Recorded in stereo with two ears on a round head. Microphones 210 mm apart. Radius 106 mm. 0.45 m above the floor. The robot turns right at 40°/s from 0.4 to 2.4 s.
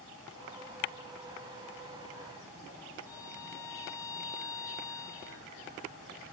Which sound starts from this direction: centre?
A violin, at 3.1 s.